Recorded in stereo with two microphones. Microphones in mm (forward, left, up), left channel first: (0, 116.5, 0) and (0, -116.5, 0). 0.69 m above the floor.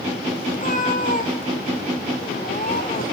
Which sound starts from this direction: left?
A cat meowing, at 0.5 s.